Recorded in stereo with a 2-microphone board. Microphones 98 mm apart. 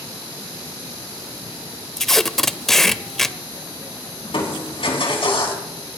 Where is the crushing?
70° left (ahead or behind), 3.5 m.